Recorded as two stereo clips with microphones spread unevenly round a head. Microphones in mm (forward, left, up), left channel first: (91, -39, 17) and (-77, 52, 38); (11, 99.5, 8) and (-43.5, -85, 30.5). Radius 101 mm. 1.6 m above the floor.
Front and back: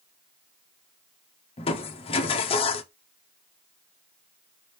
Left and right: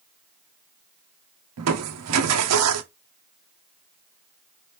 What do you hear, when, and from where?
1.6 s crushing: 90° right, 0.7 m